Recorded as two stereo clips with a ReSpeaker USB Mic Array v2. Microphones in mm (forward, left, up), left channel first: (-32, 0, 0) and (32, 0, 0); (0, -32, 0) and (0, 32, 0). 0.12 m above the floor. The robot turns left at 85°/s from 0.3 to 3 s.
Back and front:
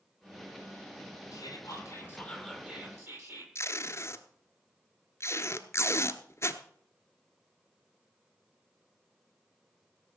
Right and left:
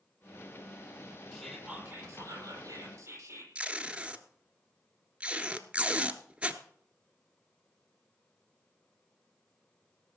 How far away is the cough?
No cough in this recording.